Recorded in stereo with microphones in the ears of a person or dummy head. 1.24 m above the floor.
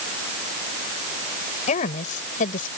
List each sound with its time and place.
1.7 s a woman speaking: 40° left (ahead or behind); by 2.7 s 45° left (ahead or behind)